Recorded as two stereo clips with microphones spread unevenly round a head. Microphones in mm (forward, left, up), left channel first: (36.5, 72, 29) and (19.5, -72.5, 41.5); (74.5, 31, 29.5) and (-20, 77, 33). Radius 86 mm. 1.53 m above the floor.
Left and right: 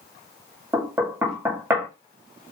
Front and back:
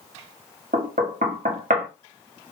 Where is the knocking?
175° right, 0.5 m.